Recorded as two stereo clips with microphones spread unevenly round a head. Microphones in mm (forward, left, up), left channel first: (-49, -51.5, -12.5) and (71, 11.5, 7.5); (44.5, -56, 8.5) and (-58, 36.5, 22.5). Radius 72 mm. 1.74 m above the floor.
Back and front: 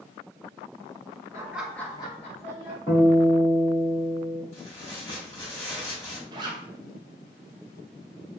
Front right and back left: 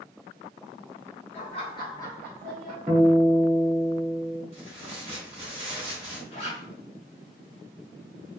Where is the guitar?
175° left, 1.4 m.